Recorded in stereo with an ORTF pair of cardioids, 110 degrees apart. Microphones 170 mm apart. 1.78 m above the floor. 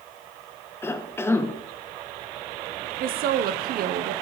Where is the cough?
15° left, 0.8 m.